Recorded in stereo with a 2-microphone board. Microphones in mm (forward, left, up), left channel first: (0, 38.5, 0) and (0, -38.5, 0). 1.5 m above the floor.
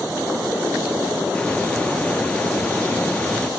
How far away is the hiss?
About 0.9 m.